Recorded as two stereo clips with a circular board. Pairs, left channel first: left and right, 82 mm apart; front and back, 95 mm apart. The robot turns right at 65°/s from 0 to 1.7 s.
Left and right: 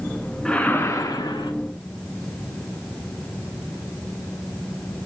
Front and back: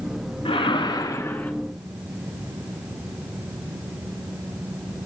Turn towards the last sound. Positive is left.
turn(degrees=90)